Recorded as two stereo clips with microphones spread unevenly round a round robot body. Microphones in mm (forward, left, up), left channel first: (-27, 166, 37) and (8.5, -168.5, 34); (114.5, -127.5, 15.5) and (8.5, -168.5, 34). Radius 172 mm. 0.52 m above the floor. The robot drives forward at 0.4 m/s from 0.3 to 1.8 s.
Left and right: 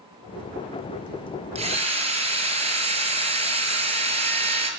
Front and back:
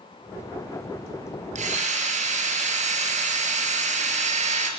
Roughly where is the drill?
Behind right.